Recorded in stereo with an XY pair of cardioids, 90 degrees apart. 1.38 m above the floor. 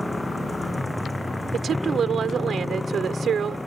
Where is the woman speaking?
60° right.